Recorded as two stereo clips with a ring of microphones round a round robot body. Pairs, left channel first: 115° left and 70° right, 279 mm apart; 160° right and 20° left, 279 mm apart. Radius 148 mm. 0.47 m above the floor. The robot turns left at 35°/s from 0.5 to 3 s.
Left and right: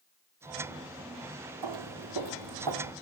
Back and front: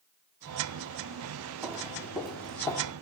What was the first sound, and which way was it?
Footsteps, 60° right.